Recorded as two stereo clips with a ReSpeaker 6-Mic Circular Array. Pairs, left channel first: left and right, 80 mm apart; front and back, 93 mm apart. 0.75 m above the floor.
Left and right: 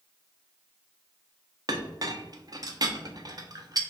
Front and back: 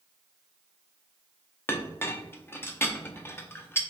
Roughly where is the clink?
Ahead right.